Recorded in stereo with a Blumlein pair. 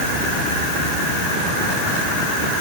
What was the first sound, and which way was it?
Only background noise.